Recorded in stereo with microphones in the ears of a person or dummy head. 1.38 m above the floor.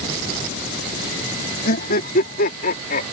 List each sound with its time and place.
1.6 s laughter: 50° left (ahead or behind)